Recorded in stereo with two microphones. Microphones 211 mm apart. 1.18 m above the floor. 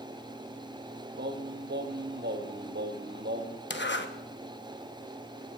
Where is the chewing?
No chewing in this recording.